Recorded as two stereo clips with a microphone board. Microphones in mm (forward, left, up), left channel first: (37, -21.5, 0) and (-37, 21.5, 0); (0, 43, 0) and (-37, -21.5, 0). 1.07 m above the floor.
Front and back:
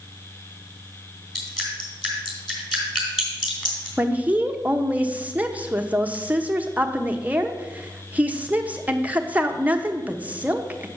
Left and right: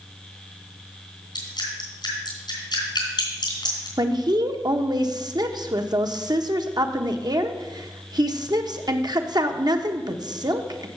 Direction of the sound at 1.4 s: 55° left.